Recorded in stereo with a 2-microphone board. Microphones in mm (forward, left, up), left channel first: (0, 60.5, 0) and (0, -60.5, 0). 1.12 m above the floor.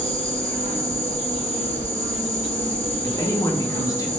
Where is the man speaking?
30° left (ahead or behind), 0.6 m.